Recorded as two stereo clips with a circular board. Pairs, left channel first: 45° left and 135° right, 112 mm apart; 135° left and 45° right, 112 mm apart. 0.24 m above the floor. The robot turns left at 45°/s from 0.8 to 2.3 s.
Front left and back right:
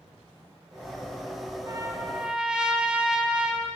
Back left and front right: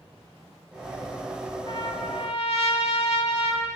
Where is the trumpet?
170° left, 0.5 m; by 3.7 s 145° left, 0.5 m.